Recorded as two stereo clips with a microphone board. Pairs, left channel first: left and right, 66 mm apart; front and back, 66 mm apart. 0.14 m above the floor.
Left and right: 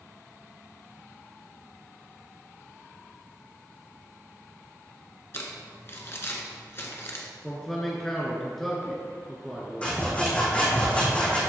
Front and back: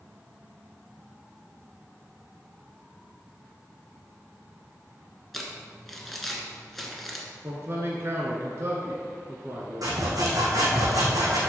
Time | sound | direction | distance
5.3 | crumpling | 85° left | 1.3 m
7.4 | a man speaking | 175° left | 1.3 m
9.8 | sawing | 160° left | 2.5 m